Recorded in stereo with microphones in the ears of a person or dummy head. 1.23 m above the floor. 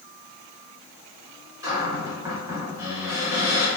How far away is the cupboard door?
About 1.0 m.